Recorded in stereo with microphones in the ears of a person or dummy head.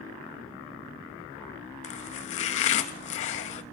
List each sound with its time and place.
1.8 s chopping: 40° left (ahead or behind), 0.9 m